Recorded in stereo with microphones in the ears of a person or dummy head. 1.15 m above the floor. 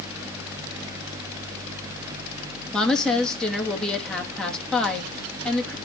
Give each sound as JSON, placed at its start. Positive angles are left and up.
{"t": 2.7, "sound": "a woman speaking", "side_deg": 5, "distance_m": 2.0}